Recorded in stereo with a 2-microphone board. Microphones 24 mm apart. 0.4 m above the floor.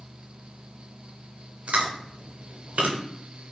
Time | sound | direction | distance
1.7 | chewing | 85° right | 0.5 m